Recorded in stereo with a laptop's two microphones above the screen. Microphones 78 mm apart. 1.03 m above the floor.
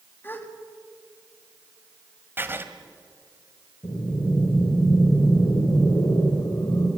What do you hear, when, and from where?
0.2 s a gasp: 25° left (ahead or behind), 1.7 m
2.4 s writing: 25° right (ahead or behind), 1.8 m
3.8 s breathing: 90° left, 3.5 m